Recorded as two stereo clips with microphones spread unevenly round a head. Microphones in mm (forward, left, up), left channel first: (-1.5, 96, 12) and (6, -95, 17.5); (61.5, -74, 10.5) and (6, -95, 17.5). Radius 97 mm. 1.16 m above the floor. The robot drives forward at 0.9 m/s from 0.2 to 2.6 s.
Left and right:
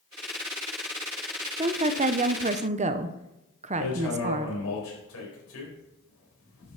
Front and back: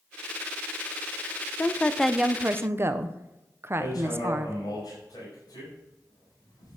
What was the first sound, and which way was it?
A woman speaking, 30° right.